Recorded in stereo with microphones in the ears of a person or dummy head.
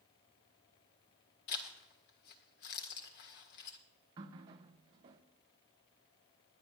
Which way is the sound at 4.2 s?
20° right (ahead or behind).